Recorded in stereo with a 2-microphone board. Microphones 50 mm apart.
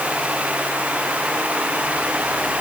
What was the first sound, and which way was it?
Only background noise.